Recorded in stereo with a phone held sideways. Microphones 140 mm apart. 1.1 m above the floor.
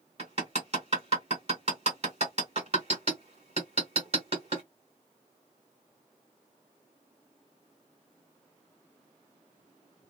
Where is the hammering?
45° right (ahead or behind), 1.5 m.